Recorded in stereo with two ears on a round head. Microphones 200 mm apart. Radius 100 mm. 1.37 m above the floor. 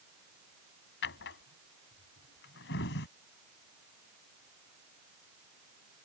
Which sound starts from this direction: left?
A drawer, at 1.0 s.